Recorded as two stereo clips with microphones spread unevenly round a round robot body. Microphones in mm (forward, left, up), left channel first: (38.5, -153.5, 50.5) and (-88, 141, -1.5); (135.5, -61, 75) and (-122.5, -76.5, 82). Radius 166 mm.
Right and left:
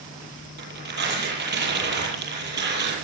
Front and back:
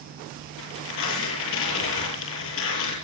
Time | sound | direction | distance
0.6 | tearing paper | 50° left | 8.5 m